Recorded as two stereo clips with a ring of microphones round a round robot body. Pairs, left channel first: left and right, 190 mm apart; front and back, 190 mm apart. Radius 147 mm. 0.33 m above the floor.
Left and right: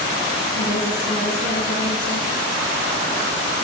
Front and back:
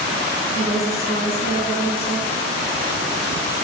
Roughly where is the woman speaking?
Ahead left.